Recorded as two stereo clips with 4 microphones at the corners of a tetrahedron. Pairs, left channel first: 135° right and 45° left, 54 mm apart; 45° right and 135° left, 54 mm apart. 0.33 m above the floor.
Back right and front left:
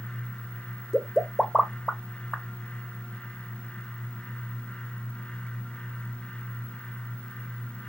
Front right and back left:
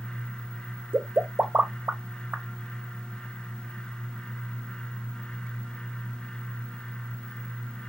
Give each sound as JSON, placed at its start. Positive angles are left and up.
{"t": 0.9, "sound": "a pop", "azimuth_deg": 145, "distance_m": 0.6}